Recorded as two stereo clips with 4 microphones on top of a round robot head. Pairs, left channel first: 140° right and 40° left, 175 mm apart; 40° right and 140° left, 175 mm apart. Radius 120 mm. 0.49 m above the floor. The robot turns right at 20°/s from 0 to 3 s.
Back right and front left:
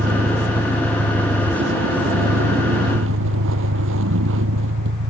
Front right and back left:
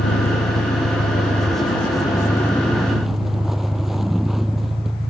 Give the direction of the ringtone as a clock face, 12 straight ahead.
No ringtone in this recording.